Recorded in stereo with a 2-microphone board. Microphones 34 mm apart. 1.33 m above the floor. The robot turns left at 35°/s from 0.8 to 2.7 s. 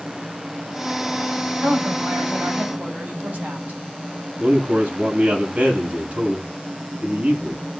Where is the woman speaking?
90° right, 6.5 m; by 3.8 s 125° right, 6.5 m.